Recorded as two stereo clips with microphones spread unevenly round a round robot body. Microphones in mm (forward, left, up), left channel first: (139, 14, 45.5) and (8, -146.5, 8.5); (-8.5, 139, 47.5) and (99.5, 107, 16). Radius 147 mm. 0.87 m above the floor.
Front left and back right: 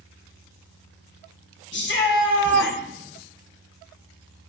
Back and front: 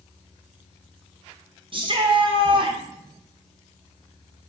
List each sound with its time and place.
1.7 s a shout: 15° left, 1.6 m